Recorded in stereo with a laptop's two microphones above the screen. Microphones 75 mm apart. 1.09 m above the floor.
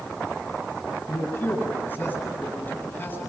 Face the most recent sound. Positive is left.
turn(degrees=25)  # may be behind; listen again after turning